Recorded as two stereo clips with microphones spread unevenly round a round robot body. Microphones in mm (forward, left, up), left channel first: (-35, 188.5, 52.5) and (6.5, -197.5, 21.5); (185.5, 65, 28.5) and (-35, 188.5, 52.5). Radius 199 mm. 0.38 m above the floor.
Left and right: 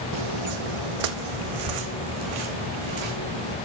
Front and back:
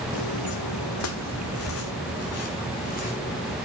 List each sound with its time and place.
0.1 s footsteps: 55° right, 1.4 m; by 3.5 s 105° right, 3.5 m